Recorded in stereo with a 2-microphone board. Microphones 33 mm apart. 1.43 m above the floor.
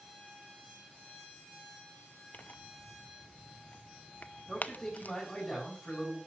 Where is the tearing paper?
55° left (ahead or behind), 0.7 m.